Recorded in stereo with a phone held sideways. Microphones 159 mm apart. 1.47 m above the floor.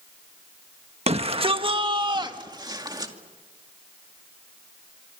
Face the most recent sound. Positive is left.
turn(degrees=-25)  # may be behind; listen again after turning